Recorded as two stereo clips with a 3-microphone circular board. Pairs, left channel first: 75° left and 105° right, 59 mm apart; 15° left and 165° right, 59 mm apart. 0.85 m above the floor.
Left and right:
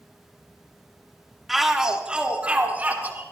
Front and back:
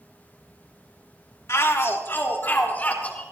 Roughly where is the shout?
Ahead.